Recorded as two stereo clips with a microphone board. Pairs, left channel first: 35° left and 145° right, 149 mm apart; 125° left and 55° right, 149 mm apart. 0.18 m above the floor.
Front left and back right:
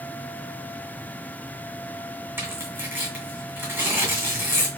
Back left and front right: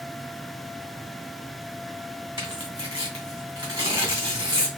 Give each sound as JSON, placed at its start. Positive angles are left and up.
{"t": 2.4, "sound": "tearing paper", "azimuth_deg": -90, "distance_m": 1.6}